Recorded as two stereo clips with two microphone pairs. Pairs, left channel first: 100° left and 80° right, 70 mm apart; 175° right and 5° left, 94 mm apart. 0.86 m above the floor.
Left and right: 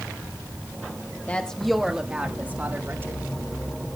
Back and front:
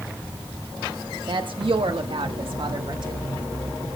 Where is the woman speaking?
30° left, 1.1 m; by 3.2 s 30° right, 2 m.